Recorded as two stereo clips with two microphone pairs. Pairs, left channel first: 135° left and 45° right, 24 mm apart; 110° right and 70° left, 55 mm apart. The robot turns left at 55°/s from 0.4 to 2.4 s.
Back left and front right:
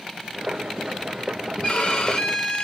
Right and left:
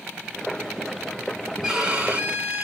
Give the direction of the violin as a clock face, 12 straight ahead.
7 o'clock.